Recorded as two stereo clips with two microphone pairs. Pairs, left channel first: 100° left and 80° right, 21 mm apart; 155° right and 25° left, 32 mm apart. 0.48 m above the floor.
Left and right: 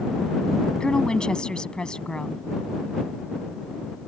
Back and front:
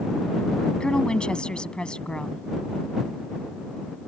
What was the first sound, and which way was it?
A woman speaking, 145° left.